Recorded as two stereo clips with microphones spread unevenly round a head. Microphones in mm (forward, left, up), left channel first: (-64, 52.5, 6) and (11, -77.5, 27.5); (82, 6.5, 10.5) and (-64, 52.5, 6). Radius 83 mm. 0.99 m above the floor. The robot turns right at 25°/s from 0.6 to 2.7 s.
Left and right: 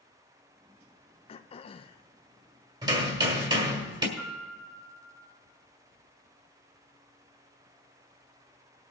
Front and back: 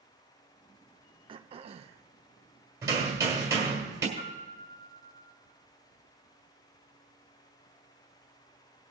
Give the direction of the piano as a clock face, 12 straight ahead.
11 o'clock.